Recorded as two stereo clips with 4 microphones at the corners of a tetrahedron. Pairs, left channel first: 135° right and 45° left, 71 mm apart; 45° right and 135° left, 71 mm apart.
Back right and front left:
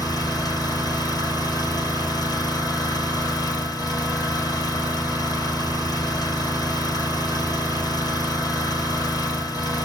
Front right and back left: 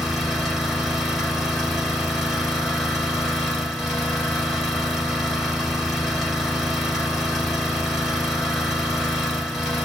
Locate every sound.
0.0 s an engine running: 140° right, 1.6 m